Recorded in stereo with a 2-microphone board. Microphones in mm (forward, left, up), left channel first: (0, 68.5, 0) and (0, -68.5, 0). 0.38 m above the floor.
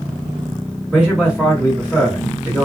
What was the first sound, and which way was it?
A man speaking, 5° right (ahead or behind).